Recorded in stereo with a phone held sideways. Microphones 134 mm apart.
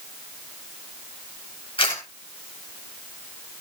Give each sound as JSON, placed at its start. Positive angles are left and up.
{"t": 1.8, "sound": "a camera shutter", "side_deg": 45, "distance_m": 10.0}